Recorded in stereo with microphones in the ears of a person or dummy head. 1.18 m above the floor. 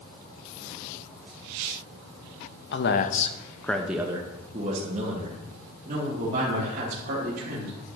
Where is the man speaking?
45° left (ahead or behind), 0.7 m; by 7.8 s 45° right (ahead or behind), 2.5 m.